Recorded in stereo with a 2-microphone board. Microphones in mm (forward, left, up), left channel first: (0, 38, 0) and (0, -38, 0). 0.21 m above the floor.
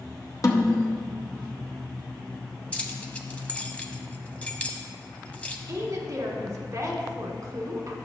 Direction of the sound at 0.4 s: 50° left (ahead or behind).